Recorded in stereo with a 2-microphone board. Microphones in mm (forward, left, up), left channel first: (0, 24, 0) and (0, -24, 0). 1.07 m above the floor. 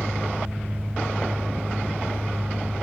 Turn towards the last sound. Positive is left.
turn(degrees=-35)  # may be behind; listen again after turning